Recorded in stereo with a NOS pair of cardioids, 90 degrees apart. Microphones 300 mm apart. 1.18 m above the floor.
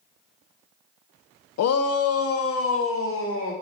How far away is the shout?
About 0.7 m.